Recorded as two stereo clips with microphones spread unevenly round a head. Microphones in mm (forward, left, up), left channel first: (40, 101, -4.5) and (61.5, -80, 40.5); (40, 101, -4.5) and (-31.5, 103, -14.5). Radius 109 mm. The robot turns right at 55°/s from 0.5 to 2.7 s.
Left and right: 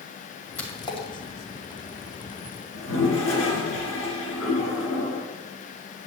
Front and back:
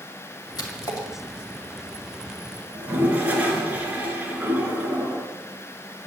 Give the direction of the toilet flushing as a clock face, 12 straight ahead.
8 o'clock.